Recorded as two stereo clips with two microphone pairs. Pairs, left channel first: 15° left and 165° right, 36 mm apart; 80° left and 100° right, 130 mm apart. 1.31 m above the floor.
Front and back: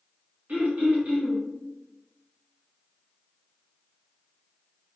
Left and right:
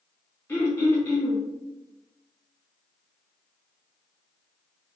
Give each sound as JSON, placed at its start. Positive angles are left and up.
{"t": 0.5, "sound": "throat clearing", "azimuth_deg": 155, "distance_m": 1.5}